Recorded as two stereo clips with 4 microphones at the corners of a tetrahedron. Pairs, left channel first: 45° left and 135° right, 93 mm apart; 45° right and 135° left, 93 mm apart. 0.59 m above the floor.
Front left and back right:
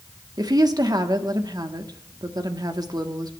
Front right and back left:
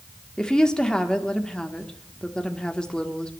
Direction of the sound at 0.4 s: 120° right.